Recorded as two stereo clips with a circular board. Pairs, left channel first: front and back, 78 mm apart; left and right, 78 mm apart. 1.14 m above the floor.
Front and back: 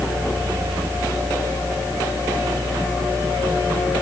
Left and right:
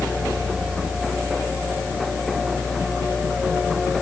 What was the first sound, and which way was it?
Only background noise.